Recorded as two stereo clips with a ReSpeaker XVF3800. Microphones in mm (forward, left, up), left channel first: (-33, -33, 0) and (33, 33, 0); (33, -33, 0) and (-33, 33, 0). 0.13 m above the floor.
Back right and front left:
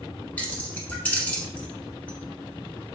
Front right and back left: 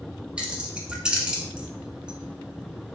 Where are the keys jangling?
170° right, 0.7 m.